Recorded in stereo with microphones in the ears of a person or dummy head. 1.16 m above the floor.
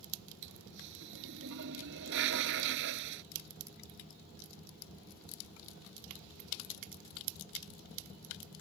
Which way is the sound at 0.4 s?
75° right (ahead or behind).